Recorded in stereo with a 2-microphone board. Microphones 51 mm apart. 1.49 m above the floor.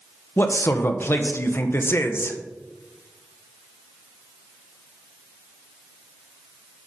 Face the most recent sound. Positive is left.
turn(degrees=50)  # may be behind; listen again after turning